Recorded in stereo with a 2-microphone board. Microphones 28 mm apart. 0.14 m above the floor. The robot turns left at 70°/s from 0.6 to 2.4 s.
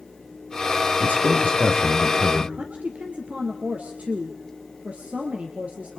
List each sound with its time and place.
1.0 s a man speaking: 80° left, 3.5 m; by 2.5 s 20° right, 3.5 m
2.6 s a woman speaking: 55° right (ahead or behind), 2.5 m